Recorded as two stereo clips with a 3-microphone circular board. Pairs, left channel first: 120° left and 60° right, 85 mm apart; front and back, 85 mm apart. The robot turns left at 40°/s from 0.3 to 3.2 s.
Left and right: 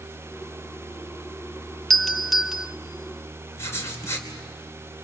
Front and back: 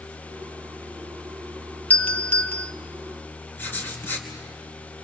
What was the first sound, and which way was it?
A doorbell, 35° left.